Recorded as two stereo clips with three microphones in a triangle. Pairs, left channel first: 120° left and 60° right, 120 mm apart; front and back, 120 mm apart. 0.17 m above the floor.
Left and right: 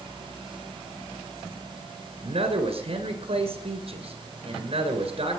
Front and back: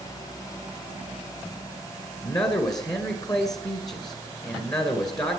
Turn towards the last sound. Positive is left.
turn(degrees=-50)